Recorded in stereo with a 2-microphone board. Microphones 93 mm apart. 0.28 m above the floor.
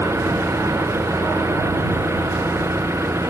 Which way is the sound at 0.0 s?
30° right (ahead or behind).